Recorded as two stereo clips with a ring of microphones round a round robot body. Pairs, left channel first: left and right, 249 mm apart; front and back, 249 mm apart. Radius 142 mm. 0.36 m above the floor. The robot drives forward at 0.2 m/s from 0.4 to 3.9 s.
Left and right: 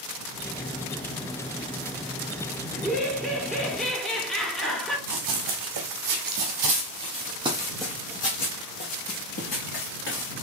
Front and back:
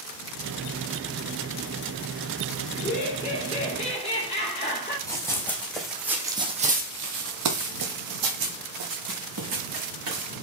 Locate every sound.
2.7 s laughter: 5° left, 1.6 m
5.1 s running footsteps: 80° right, 1.5 m; by 10.3 s 140° left, 2 m